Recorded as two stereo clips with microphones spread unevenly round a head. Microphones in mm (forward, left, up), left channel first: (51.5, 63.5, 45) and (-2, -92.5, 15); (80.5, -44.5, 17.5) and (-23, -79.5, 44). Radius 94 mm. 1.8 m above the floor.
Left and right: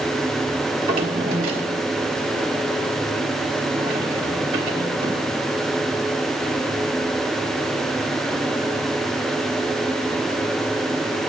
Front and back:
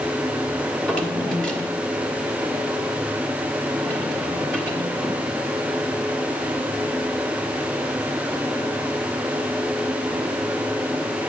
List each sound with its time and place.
0.7 s a drawer: 85° right, 1.5 m